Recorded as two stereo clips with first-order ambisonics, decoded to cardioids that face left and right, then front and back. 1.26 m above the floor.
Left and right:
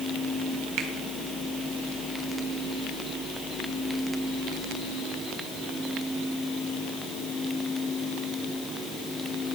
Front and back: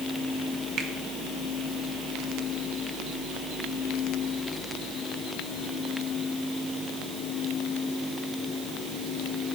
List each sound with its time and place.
0.8 s a finger snap: 125° right, 1.2 m